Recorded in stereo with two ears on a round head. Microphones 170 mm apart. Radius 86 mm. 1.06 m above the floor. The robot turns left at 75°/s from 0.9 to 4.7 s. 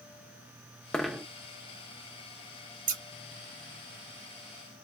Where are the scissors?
50° right (ahead or behind), 0.7 m; by 3.0 s 35° right (ahead or behind), 0.7 m.